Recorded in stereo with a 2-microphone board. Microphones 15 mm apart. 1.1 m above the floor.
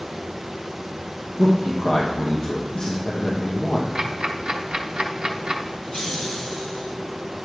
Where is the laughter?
65° left (ahead or behind), 5 m.